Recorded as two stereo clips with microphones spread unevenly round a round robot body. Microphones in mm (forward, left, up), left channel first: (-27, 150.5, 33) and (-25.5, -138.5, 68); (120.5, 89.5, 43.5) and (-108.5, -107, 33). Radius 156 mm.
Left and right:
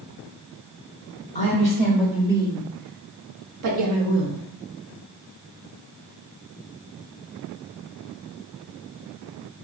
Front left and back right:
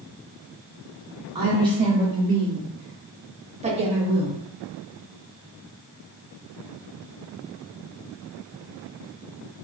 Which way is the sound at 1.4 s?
155° left.